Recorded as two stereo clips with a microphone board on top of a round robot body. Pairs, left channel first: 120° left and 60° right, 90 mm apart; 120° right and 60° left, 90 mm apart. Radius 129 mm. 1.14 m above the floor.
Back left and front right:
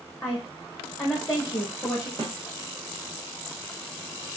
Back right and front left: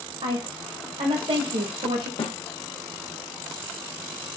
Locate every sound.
0.2 s a woman speaking: 55° left, 1.5 m
2.2 s a snare drum: 105° right, 1.5 m